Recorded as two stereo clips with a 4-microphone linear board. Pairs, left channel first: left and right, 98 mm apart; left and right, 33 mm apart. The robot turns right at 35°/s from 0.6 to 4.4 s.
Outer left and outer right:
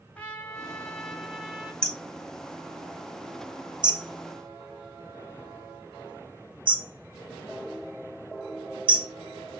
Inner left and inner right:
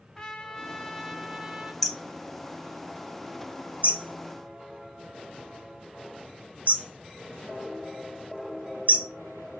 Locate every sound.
0.1 s a trumpet: 160° left, 1.0 m; by 1.7 s 160° right, 1.0 m
1.8 s hammering: 10° left (ahead or behind), 0.7 m; by 9.1 s 55° right (ahead or behind), 0.7 m